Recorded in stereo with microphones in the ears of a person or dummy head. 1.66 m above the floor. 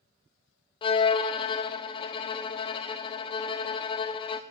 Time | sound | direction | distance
0.8 | a violin | 20° left (ahead or behind) | 0.5 m